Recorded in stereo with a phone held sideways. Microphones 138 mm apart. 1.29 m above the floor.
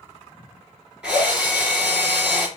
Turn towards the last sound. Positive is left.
turn(degrees=-10)  # may be behind; listen again after turning